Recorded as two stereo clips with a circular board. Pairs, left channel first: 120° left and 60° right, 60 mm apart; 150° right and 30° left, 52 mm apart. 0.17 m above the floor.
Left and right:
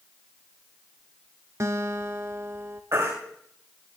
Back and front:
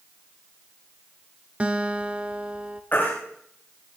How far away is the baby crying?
About 7 m.